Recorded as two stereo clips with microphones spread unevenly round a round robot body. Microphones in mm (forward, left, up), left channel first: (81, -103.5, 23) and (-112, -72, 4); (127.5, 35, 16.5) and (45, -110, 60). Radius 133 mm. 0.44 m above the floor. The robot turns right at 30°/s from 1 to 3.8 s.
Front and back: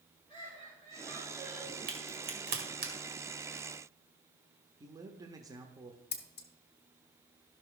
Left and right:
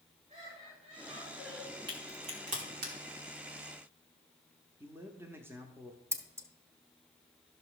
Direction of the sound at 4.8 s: 145° left.